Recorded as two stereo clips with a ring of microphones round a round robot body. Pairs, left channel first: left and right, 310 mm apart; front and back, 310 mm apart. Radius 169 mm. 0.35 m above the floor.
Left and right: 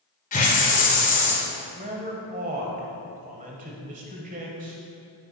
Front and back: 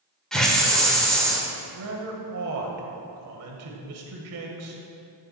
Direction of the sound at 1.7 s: 150° right.